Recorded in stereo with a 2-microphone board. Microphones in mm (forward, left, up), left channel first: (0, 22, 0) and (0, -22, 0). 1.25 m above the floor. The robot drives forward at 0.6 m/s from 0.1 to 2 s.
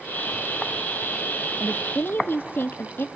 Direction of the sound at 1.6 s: 35° left (ahead or behind).